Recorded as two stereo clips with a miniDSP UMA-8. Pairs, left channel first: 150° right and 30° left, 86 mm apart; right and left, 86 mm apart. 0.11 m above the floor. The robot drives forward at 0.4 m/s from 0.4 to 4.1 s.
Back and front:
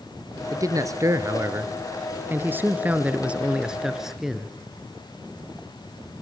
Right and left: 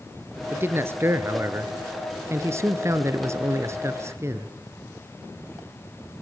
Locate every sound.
0.5 s a man speaking: 40° left, 2 m; by 4.5 s 110° left, 1.8 m